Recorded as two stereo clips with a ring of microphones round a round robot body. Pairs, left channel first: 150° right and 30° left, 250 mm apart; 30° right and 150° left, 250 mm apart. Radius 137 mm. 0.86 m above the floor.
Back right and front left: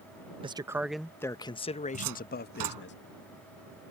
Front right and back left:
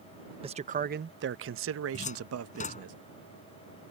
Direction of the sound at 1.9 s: 35° left.